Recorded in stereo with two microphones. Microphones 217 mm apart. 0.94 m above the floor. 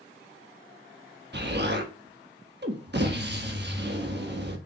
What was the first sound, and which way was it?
An explosion, 50° right (ahead or behind).